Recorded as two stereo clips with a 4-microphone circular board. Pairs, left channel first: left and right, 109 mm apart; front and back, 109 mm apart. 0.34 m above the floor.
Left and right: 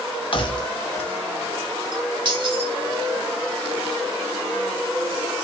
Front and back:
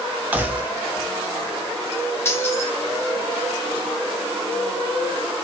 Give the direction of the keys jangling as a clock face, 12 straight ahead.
8 o'clock.